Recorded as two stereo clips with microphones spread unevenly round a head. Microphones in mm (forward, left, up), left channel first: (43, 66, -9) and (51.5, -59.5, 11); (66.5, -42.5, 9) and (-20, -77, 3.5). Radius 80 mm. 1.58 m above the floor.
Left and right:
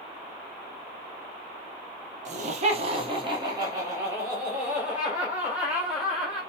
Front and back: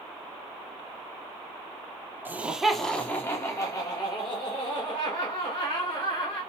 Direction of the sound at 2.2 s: 90° right.